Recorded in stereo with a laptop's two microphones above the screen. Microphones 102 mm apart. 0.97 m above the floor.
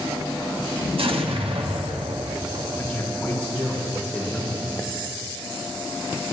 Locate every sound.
1.0 s an explosion: 65° right (ahead or behind), 1.1 m
2.8 s a man speaking: 15° left (ahead or behind), 3.5 m